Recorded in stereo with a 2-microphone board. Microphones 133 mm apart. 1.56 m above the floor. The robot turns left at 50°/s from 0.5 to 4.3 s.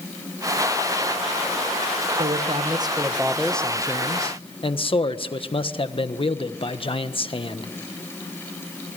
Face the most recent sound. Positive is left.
turn(degrees=135)